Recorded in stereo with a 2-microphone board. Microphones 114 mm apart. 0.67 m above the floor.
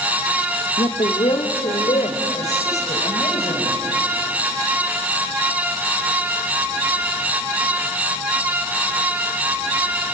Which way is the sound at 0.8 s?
55° left (ahead or behind).